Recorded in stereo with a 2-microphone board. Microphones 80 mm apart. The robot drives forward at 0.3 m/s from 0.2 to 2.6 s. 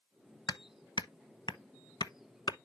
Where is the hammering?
65° left (ahead or behind), 0.8 m.